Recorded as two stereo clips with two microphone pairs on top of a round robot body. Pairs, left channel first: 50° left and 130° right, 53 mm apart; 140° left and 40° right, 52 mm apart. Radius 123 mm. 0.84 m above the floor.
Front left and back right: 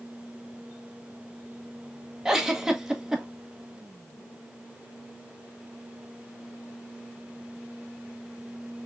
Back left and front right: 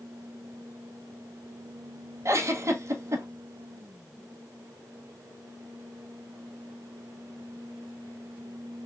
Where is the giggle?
55° right, 0.8 m.